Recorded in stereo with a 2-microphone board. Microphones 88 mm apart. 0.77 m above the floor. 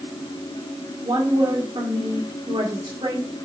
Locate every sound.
1.0 s a woman speaking: 65° right (ahead or behind), 1.8 m